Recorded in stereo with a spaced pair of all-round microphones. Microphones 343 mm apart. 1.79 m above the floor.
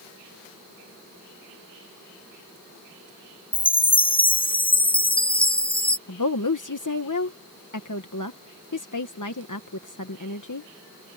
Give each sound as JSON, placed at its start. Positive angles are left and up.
{"t": 3.5, "sound": "a chime", "side_deg": 15}
{"t": 6.1, "sound": "a woman speaking", "side_deg": 60}